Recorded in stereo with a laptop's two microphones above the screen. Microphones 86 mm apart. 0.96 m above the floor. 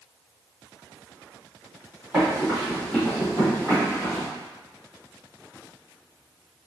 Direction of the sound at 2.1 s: Centre (ahead or behind).